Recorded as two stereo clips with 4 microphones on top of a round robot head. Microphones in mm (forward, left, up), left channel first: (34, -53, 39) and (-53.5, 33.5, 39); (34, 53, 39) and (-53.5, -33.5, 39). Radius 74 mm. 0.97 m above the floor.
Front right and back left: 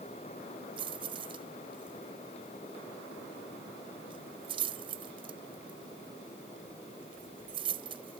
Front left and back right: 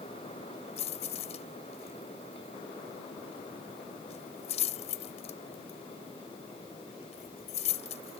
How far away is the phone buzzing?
I don't hear a phone buzzing.